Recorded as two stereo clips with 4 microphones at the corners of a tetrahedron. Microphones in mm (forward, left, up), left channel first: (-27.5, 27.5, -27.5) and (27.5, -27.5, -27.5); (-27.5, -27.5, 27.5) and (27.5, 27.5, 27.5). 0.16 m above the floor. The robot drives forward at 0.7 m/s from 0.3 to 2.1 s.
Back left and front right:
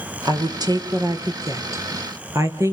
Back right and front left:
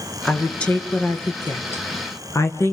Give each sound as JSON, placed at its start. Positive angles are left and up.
{"t": 0.2, "sound": "a woman speaking", "azimuth_deg": -60, "distance_m": 3.0}